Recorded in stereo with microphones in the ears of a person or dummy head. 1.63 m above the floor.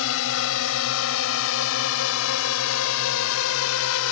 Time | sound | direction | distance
0.0 | a drone | 75° left (ahead or behind) | ?